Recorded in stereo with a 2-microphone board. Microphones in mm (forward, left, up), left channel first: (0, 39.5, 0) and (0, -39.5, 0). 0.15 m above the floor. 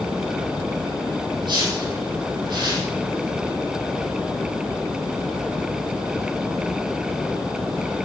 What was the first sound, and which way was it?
A whoosh, 70° right (ahead or behind).